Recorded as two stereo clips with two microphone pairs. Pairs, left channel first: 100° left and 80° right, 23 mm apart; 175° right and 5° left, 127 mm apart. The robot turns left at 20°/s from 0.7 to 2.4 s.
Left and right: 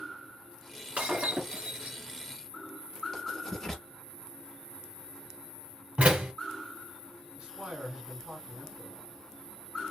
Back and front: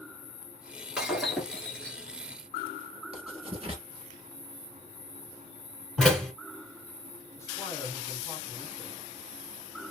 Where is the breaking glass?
75° right, 1.1 m; by 2.0 s 95° right, 1.1 m.